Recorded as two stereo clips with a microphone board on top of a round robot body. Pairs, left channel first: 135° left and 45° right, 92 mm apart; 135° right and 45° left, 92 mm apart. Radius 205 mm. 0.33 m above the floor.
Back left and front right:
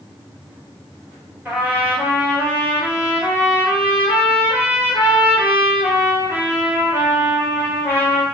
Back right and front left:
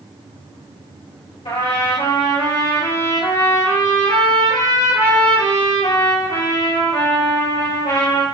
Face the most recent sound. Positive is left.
turn(degrees=-115)